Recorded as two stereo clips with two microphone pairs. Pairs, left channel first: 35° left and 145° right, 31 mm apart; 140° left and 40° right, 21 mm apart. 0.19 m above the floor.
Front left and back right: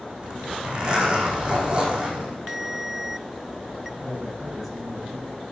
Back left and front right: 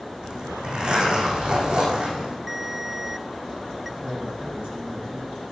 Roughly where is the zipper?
Right.